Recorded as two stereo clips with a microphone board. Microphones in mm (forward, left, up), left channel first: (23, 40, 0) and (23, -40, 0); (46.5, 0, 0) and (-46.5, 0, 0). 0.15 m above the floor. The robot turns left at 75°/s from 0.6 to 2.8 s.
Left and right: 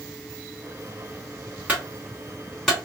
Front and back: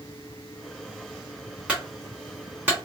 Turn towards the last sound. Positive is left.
turn(degrees=160)